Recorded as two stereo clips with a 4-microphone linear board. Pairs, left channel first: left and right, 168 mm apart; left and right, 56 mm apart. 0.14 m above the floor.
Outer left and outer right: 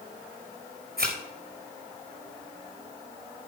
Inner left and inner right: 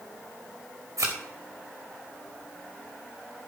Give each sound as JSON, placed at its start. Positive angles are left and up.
{"t": 1.0, "sound": "a thud", "side_deg": -65, "distance_m": 3.5}